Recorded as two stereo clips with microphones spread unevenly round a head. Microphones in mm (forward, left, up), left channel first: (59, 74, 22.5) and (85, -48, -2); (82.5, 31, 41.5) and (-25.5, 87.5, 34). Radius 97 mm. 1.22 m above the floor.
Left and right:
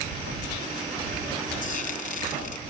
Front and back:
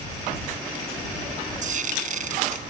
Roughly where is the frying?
Behind left.